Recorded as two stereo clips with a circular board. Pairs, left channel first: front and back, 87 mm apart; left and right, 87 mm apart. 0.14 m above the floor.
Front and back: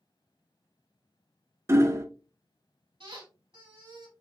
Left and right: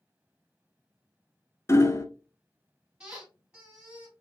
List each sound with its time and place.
1.7 s hammering: 135° left, 0.6 m
3.0 s a squeak: 170° right, 3 m